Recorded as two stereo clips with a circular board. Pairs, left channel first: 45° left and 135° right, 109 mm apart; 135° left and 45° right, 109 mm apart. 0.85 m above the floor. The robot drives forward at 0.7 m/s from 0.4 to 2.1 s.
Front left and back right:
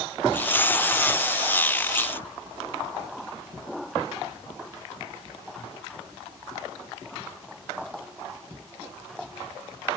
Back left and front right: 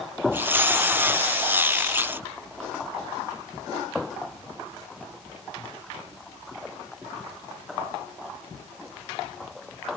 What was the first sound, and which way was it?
Only background noise.